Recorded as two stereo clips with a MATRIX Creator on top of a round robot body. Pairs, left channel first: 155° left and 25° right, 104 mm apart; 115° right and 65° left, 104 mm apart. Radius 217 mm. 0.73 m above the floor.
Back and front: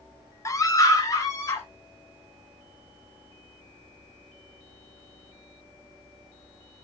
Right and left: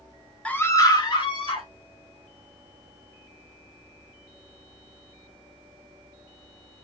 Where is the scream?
Straight behind, 0.8 m; by 1.7 s 145° right, 1.8 m.